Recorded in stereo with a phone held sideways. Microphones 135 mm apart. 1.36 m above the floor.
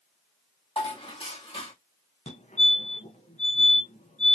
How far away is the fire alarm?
About 1.7 m.